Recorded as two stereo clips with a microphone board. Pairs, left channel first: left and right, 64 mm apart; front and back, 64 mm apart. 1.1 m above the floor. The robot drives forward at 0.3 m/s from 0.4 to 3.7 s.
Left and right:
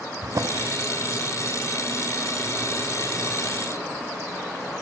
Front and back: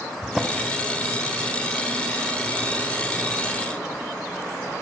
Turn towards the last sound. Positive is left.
turn(degrees=-155)